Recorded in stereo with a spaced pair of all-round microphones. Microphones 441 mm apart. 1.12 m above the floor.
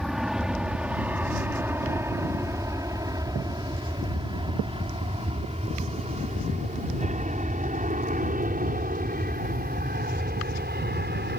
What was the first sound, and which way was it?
An aircraft, centre (ahead or behind).